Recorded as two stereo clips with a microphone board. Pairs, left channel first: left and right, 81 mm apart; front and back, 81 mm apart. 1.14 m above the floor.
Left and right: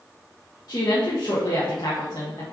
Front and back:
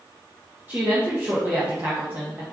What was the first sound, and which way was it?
A woman speaking, 120° left.